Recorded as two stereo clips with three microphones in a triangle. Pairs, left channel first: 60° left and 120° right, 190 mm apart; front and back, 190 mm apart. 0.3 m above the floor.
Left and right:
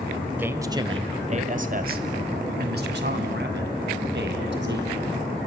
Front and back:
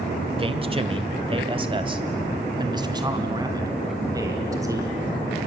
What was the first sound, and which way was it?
A man speaking, 170° left.